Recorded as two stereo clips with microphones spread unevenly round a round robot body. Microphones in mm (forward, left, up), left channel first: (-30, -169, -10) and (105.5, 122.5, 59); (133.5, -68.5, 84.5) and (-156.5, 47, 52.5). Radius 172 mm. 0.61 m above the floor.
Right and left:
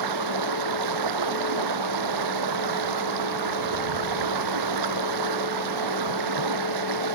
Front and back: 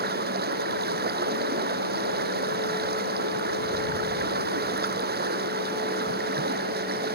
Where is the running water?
95° left.